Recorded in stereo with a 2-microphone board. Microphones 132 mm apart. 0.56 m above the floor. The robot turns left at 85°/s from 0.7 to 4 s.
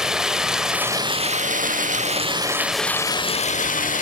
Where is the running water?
5° right, 0.8 m; by 4.0 s 75° left, 0.8 m.